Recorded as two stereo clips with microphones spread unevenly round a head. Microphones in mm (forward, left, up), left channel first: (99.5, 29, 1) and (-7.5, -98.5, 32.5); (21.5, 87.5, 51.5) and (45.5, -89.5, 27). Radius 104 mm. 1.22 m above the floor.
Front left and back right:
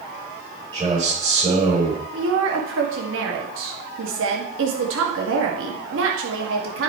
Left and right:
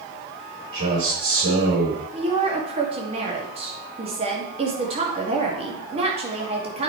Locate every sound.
0.7 s a man speaking: 70° right, 5 m
2.1 s a woman speaking: 145° right, 2 m